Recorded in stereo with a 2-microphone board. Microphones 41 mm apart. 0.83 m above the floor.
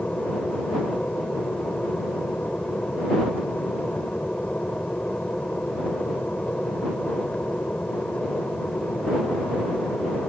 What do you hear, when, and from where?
0.0 s an aircraft: 40° left (ahead or behind)